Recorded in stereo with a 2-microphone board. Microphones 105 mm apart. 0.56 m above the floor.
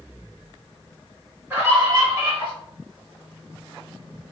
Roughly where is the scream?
Right.